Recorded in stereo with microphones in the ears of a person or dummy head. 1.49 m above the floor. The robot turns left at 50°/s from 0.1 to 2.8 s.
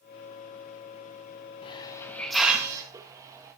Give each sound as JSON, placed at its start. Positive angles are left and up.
{"t": 1.6, "sound": "a hiss", "azimuth_deg": 35, "distance_m": 1.1}